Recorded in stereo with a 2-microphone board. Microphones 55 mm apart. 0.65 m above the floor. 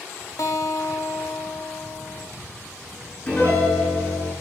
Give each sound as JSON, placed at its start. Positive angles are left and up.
{"t": 0.4, "sound": "a guitar", "side_deg": 70, "distance_m": 0.8}
{"t": 3.3, "sound": "a piano", "side_deg": 25, "distance_m": 4.5}